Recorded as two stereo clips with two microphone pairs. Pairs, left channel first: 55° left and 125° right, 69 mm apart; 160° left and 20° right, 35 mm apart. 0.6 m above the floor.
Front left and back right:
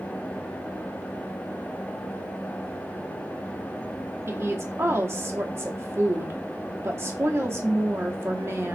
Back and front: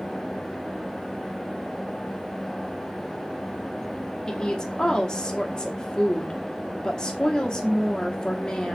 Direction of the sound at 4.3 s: 145° right.